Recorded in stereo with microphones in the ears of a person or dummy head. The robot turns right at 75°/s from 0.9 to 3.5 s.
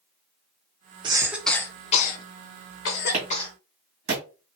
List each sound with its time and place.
1.0 s a cough: 30° right (ahead or behind), 0.9 m; by 3.5 s 25° left (ahead or behind), 0.9 m
3.1 s a clap: 30° right (ahead or behind), 1.5 m; by 4.2 s 55° right (ahead or behind), 1.5 m